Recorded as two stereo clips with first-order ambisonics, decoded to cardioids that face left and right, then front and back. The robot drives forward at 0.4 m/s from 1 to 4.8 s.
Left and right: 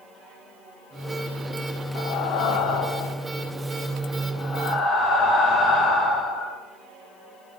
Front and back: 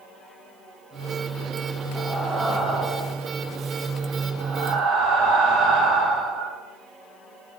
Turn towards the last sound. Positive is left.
turn(degrees=145)